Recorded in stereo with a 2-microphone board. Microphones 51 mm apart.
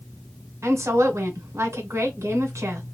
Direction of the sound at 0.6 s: 65° right (ahead or behind).